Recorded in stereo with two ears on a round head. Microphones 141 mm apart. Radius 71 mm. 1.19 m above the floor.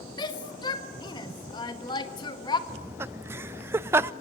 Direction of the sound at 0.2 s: 30° left (ahead or behind).